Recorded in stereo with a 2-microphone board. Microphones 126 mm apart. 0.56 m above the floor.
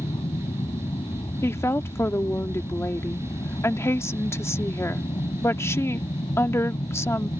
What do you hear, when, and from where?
0.0 s an aircraft: 40° left (ahead or behind); by 7.4 s 45° left (ahead or behind)
1.4 s a woman speaking: 20° left (ahead or behind)